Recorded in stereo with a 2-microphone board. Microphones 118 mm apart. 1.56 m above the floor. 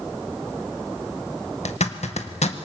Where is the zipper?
70° left (ahead or behind), 1.6 m.